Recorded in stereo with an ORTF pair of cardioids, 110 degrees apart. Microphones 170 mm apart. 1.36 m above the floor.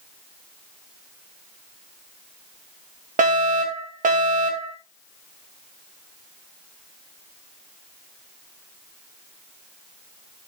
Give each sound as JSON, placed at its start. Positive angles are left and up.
{"t": 3.2, "sound": "a fire alarm", "azimuth_deg": -50, "distance_m": 3.0}